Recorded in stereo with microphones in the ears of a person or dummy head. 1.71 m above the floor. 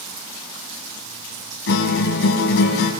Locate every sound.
1.7 s a guitar: 70° left (ahead or behind), 4 m